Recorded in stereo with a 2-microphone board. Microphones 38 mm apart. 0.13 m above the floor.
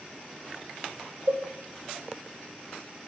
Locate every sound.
1.3 s a cowbell: 70° right (ahead or behind), 4.5 m